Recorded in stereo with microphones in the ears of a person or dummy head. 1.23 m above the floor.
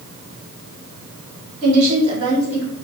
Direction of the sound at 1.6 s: 40° right (ahead or behind).